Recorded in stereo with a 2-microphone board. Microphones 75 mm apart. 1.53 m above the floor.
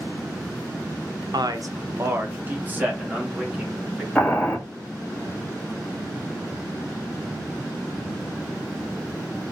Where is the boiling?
15° left (ahead or behind), 0.9 m.